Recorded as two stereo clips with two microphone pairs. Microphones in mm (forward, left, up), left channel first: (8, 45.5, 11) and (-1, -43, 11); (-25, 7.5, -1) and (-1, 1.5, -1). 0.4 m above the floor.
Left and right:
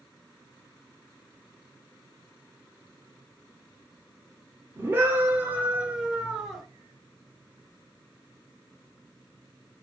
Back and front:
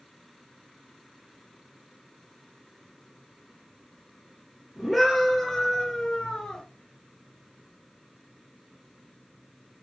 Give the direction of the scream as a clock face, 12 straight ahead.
3 o'clock.